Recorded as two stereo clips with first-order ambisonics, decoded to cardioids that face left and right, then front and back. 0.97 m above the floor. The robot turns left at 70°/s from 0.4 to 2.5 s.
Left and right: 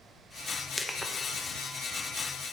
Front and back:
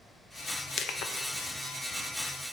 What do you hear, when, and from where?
0.8 s crushing: 10° left, 0.6 m; by 1.1 s 15° right, 0.6 m